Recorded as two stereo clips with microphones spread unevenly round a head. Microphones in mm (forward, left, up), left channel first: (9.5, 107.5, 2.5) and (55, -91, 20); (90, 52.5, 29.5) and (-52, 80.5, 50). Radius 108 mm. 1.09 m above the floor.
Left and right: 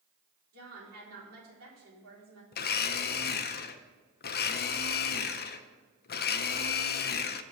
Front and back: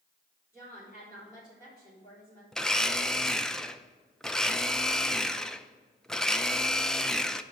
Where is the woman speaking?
85° right, 3.5 m.